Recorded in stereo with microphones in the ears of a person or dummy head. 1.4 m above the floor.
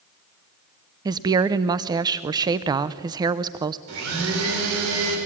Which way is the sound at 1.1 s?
25° right (ahead or behind).